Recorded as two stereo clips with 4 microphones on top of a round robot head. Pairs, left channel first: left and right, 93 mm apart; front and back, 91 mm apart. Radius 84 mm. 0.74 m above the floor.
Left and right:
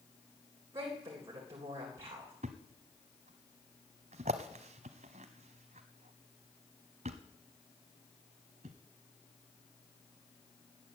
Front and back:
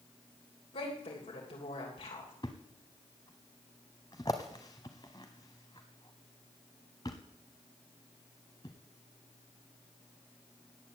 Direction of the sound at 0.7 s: 25° right.